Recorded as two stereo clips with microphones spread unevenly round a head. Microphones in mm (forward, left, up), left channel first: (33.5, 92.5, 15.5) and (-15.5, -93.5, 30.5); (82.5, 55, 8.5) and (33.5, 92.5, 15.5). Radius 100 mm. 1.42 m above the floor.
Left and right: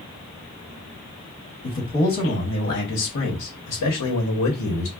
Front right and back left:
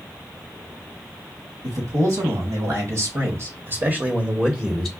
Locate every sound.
1.6 s a man speaking: 140° left, 1.8 m; by 4.9 s 40° left, 0.9 m